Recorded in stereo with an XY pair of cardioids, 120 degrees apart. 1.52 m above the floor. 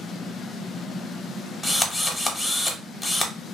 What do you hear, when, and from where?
1.6 s a drill: 15° left, 0.7 m